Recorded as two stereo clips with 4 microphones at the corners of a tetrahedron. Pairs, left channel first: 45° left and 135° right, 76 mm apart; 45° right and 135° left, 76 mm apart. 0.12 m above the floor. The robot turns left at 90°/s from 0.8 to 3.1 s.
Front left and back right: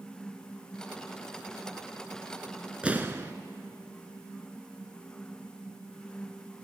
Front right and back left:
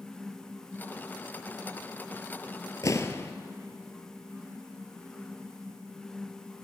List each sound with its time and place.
2.8 s an explosion: 60° right, 0.6 m; by 3.3 s 85° right, 0.6 m